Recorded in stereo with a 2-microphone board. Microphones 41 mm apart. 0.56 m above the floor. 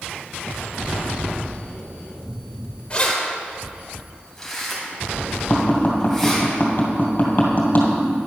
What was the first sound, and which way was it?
Keys jangling, 25° left (ahead or behind).